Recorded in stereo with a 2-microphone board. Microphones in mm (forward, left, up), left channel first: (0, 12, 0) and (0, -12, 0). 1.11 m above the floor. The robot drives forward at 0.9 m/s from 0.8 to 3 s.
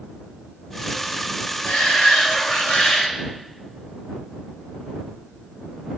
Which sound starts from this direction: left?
A shout, at 1.6 s.